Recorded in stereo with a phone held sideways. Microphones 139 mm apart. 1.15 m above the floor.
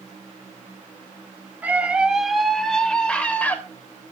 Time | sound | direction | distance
1.6 | a scream | 10° right (ahead or behind) | 2 m